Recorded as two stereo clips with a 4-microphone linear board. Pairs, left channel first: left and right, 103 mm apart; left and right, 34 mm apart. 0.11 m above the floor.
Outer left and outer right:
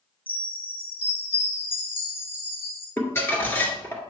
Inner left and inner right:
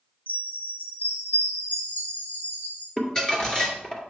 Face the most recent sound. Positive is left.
turn(degrees=20)  # may be behind; listen again after turning